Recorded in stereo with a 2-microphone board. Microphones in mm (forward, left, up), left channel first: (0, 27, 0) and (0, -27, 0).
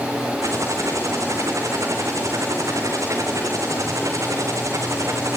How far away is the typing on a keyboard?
About 5.5 m.